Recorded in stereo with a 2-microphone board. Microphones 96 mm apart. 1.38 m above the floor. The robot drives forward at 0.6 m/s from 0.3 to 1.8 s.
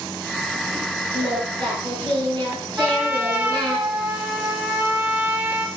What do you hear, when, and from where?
1.1 s singing: 55° right (ahead or behind), 7.5 m; by 3.8 s 50° right (ahead or behind), 8 m
2.8 s a trumpet: 20° right (ahead or behind), 1.8 m